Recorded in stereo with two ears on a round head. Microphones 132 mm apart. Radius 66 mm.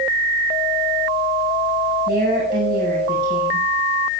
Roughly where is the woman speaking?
Right.